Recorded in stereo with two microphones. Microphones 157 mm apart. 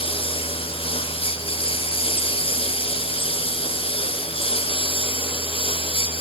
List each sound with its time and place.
0.0 s a lawn mower: 35° left (ahead or behind)